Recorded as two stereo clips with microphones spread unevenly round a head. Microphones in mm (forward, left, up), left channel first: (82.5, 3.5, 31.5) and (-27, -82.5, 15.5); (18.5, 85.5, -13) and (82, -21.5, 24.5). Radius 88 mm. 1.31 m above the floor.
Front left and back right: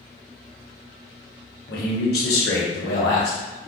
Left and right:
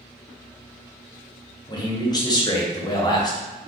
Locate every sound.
1.7 s a man speaking: 65° left, 1.1 m